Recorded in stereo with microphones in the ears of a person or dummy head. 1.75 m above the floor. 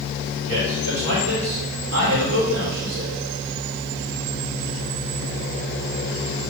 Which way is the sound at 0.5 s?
80° right.